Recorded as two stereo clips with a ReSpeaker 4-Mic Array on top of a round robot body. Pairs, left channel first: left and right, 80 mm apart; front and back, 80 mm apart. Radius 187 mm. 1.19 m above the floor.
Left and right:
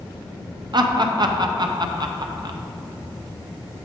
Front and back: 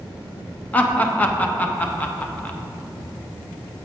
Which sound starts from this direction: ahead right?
Laughter, at 0.7 s.